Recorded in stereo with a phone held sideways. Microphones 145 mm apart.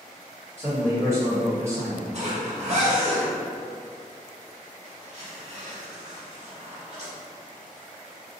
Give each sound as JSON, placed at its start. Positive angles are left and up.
{"t": 0.6, "sound": "a man speaking", "side_deg": -20, "distance_m": 1.3}
{"t": 2.1, "sound": "a zipper", "side_deg": -50, "distance_m": 1.1}